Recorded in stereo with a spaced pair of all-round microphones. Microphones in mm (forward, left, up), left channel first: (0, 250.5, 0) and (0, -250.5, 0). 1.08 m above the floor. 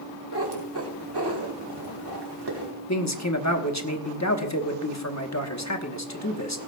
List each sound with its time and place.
0.3 s a cat meowing: 50° right (ahead or behind), 2 m
2.9 s a man speaking: 35° left (ahead or behind), 1.2 m